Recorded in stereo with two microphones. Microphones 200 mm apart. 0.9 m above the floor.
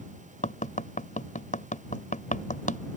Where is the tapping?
40° left (ahead or behind).